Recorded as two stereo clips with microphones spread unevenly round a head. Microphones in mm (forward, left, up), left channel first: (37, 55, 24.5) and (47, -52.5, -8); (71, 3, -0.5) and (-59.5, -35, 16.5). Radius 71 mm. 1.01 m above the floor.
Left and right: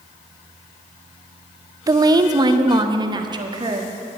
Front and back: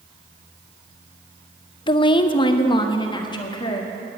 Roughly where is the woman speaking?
Ahead right.